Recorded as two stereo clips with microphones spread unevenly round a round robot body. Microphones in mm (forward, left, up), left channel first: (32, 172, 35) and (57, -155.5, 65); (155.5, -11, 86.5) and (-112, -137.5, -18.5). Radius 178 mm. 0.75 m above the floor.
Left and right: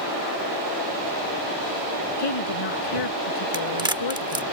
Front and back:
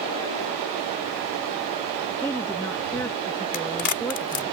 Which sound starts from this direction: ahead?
A crack, at 3.5 s.